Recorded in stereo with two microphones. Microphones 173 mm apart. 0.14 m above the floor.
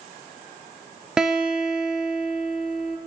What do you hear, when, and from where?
1.2 s a guitar: 5° right (ahead or behind), 0.9 m